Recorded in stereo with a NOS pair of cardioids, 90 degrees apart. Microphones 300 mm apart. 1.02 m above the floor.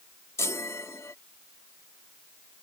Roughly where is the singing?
I don't hear singing.